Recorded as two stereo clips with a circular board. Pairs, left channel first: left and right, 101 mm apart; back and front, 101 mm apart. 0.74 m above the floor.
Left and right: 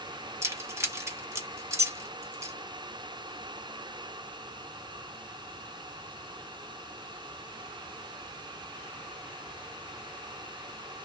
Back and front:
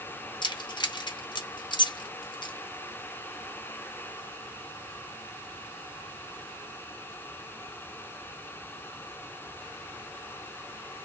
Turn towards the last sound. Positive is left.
turn(degrees=-150)